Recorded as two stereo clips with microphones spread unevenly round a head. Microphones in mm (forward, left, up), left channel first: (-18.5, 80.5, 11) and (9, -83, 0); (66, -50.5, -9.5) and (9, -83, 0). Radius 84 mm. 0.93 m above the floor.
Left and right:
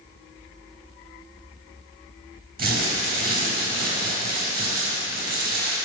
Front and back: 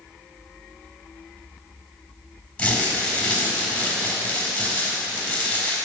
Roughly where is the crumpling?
Ahead right.